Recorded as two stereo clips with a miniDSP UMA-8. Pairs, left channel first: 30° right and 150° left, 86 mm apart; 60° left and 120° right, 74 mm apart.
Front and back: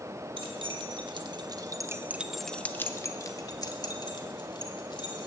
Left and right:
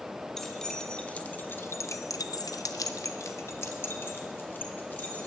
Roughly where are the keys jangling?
Behind left.